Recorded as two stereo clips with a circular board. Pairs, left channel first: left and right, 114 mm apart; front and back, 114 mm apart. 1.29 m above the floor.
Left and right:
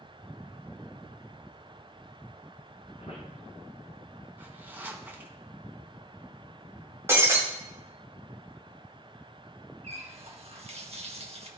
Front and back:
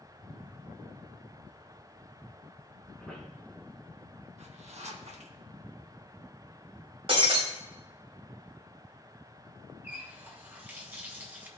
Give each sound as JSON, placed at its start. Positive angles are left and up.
{"t": 3.0, "sound": "a squeak", "azimuth_deg": 95, "distance_m": 3.0}
{"t": 4.4, "sound": "a zipper", "azimuth_deg": -165, "distance_m": 1.0}
{"t": 7.1, "sound": "breaking glass", "azimuth_deg": -155, "distance_m": 1.9}
{"t": 9.8, "sound": "a running tap", "azimuth_deg": -105, "distance_m": 1.1}